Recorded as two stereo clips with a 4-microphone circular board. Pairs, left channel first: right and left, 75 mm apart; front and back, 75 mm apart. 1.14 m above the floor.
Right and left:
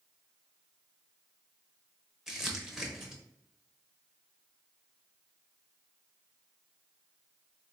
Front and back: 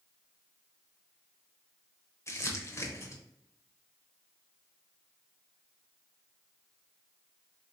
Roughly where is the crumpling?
Ahead.